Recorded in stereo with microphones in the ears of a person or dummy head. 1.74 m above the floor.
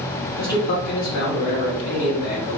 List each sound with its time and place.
0.4 s a man speaking: 45° left (ahead or behind), 1.0 m